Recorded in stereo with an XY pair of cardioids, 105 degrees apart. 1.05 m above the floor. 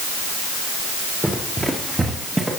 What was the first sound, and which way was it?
Running footsteps, 10° right.